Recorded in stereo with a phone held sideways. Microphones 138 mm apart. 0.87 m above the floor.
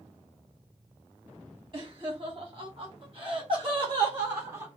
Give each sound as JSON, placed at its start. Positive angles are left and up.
{"t": 1.7, "sound": "laughter", "side_deg": -40, "distance_m": 1.4}